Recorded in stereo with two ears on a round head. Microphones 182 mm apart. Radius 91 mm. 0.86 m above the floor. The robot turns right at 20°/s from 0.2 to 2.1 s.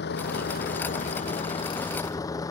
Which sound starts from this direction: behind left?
A vehicle, at 0.0 s.